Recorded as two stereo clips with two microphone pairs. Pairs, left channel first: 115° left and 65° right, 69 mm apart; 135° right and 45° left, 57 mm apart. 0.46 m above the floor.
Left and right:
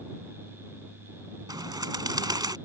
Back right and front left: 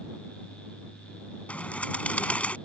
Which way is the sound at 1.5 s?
70° right.